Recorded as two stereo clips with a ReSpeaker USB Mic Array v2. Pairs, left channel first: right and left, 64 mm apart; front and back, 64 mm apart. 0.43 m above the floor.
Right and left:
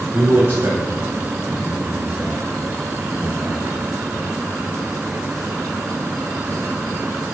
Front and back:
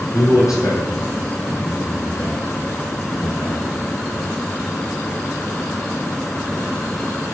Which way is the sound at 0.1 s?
30° left.